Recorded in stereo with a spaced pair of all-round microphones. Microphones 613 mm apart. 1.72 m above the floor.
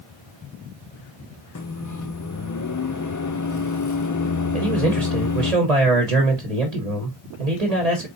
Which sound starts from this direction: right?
A man speaking, at 4.5 s.